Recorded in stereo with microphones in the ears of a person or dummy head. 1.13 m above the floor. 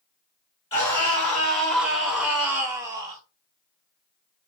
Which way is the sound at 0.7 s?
30° left (ahead or behind).